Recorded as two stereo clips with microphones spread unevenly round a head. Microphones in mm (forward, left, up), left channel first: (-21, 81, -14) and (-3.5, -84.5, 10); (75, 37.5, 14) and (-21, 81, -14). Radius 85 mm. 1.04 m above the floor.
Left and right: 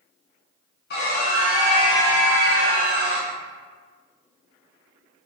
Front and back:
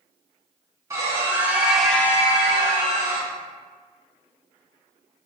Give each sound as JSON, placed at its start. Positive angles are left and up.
{"t": 0.9, "sound": "a scream", "azimuth_deg": 100, "distance_m": 1.8}